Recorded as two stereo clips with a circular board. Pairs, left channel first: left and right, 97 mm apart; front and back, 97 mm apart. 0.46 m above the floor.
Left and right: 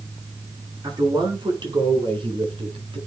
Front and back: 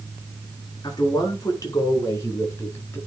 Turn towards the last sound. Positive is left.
turn(degrees=-65)